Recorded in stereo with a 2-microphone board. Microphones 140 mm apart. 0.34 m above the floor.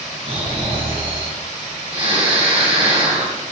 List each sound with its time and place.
0.2 s snoring: 45° right (ahead or behind), 3.5 m